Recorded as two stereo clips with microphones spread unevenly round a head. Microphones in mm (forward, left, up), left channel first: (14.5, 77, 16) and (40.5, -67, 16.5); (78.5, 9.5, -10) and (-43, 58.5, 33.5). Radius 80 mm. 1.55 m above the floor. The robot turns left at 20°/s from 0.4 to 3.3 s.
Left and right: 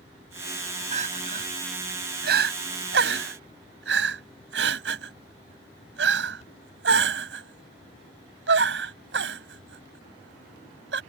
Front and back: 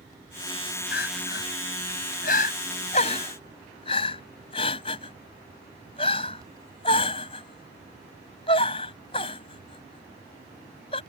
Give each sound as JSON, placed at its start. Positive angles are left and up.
{"t": 0.9, "sound": "crying", "azimuth_deg": -40}